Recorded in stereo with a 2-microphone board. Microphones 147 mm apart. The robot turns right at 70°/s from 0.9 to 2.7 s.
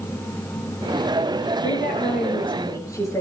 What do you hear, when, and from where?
1.6 s a woman speaking: 85° left, 5 m; by 3.2 s 160° left, 5 m